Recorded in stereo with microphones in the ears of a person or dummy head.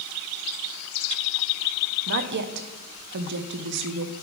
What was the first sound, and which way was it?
A woman speaking, 55° right (ahead or behind).